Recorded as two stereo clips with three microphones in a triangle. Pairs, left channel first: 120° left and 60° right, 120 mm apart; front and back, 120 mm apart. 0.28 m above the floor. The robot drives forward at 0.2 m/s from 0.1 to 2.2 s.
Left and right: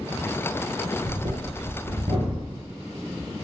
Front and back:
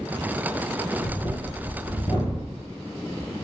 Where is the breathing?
35° right, 1.1 m; by 2.6 s 40° right, 0.9 m.